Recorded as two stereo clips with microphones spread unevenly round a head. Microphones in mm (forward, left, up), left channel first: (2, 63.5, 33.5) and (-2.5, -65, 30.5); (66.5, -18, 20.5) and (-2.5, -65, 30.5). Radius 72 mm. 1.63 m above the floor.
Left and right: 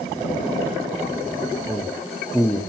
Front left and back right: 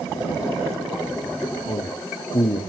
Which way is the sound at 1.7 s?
5° left.